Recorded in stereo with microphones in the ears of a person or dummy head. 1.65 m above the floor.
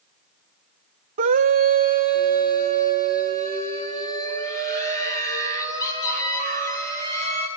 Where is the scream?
40° right (ahead or behind), 0.6 m.